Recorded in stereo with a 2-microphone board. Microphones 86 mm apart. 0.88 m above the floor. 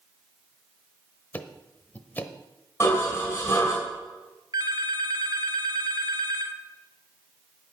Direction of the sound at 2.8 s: 25° left (ahead or behind).